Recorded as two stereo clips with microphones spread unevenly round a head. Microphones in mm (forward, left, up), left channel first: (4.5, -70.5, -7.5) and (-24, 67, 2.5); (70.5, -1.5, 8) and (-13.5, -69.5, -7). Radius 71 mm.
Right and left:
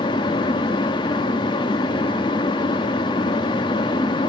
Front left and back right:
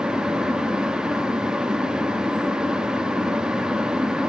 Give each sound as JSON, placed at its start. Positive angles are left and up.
{"t": 0.0, "sound": "a fan", "azimuth_deg": -50, "distance_m": 0.7}